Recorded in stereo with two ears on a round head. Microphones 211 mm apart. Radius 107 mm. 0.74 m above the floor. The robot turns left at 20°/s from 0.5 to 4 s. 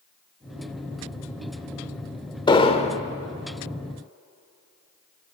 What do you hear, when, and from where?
2.5 s an explosion: 20° left (ahead or behind), 1.3 m; by 3.0 s 30° left (ahead or behind), 1.3 m